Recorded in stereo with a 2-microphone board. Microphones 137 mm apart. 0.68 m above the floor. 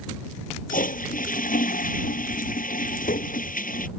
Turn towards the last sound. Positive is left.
turn(degrees=80)